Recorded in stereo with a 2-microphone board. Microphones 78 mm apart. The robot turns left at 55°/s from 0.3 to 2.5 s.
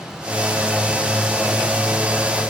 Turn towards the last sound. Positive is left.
No sound to turn to.